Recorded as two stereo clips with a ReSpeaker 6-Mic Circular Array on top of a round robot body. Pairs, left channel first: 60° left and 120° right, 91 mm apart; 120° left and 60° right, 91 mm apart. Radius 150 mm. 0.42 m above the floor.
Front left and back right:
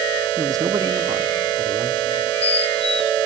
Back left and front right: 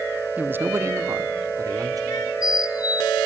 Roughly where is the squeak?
Left.